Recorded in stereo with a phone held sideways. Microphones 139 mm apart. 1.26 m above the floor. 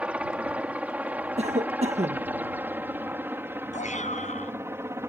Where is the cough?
55° right (ahead or behind).